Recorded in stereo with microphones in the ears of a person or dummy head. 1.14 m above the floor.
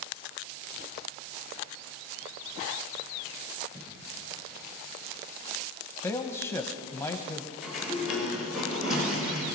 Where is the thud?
55° right (ahead or behind), 8.5 m.